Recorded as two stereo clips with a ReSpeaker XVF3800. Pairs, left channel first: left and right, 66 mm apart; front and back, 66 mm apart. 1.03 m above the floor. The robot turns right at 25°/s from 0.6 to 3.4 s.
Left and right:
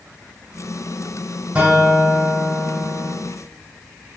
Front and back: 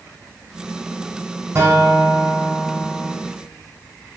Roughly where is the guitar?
Behind right.